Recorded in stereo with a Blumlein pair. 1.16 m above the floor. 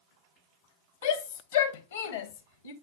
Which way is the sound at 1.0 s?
65° left.